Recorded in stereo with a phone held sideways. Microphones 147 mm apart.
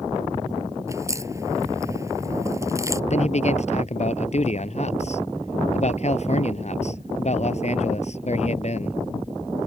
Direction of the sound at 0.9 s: 20° right (ahead or behind).